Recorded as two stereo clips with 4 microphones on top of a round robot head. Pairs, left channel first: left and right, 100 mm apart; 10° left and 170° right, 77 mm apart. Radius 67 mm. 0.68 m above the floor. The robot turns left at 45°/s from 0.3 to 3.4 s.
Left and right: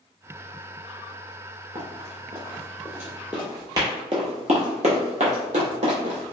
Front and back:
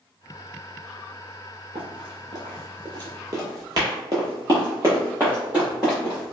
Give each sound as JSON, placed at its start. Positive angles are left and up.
{"t": 1.8, "sound": "running footsteps", "azimuth_deg": -140, "distance_m": 1.3}